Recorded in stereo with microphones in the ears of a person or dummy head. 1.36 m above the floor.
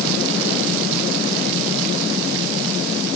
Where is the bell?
No bell in this recording.